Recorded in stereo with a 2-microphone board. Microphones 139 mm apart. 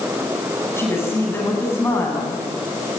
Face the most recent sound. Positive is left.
turn(degrees=20)  # may be behind; listen again after turning